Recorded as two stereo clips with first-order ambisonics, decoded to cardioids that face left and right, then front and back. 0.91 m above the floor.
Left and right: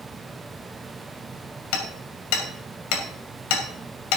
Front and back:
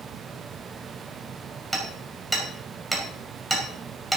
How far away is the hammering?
About 2.5 m.